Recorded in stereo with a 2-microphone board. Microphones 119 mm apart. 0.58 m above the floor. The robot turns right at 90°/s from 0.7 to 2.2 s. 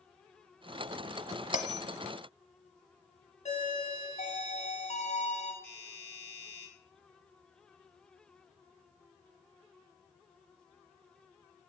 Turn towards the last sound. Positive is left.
turn(degrees=15)  # may be behind; listen again after turning